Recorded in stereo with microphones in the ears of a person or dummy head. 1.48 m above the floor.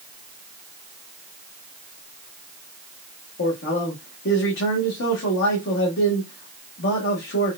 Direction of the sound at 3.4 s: 70° left (ahead or behind).